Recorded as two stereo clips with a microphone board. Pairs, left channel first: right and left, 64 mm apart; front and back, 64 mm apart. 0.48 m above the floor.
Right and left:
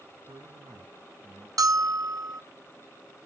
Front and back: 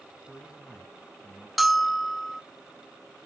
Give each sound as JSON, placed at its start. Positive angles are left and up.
{"t": 0.3, "sound": "a man speaking", "azimuth_deg": 85, "distance_m": 3.5}
{"t": 1.6, "sound": "a bell", "azimuth_deg": 90, "distance_m": 0.6}